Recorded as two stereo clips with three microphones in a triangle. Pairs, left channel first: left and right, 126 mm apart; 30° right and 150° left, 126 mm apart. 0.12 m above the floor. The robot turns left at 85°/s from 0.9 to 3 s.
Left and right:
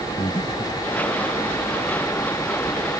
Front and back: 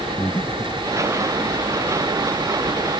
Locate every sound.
0.2 s breathing: 45° left